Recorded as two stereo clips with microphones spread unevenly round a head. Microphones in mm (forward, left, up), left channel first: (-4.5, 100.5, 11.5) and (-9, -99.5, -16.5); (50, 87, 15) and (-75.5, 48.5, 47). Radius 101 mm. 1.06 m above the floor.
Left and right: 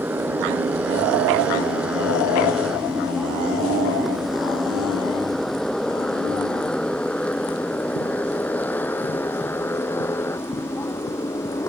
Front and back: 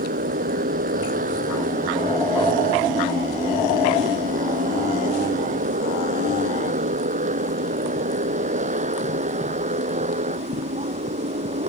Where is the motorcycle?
175° right; by 11.7 s 165° left.